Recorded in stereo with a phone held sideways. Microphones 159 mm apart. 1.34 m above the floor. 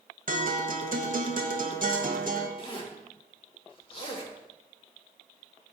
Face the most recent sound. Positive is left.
turn(degrees=35)  # may be behind; listen again after turning